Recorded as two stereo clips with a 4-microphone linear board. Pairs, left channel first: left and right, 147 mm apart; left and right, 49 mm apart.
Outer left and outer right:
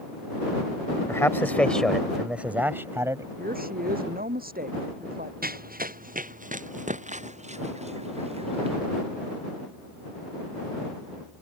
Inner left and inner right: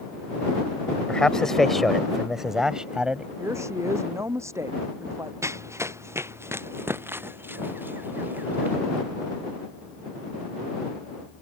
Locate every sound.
1.1 s a man speaking: 20° left (ahead or behind); by 3.3 s 20° right (ahead or behind)
3.4 s a woman speaking: 85° right
5.4 s running footsteps: 85° right; by 8.8 s 40° right (ahead or behind)